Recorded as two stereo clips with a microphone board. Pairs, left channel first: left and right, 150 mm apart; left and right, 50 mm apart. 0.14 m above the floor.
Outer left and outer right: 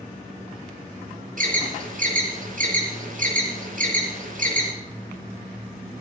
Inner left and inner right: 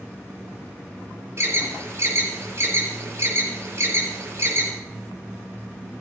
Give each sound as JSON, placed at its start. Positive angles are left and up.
{"t": 1.4, "sound": "an alarm", "side_deg": -60, "distance_m": 4.5}